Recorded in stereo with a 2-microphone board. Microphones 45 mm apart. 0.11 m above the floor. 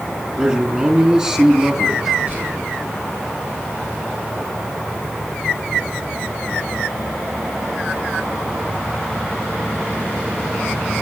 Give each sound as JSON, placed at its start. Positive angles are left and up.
{"t": 0.4, "sound": "a man speaking", "side_deg": -25, "distance_m": 3.0}
{"t": 2.3, "sound": "whispering", "side_deg": -45, "distance_m": 7.0}